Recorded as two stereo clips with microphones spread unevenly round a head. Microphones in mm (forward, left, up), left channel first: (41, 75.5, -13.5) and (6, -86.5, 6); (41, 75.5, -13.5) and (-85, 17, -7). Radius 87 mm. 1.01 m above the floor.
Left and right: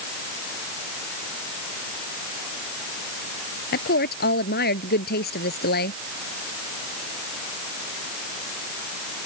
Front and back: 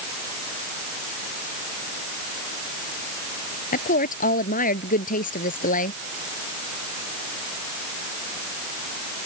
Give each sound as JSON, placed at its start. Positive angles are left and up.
{"t": 3.7, "sound": "a woman speaking", "azimuth_deg": 50}